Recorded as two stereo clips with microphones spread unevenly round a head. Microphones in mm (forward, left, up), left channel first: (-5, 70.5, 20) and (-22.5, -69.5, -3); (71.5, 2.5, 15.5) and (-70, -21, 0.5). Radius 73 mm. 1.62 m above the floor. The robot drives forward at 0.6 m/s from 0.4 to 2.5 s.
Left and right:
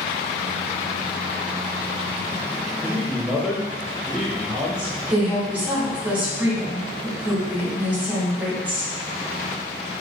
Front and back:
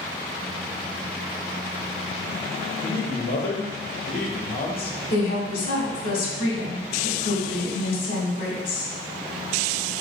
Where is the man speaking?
10° right, 0.9 m.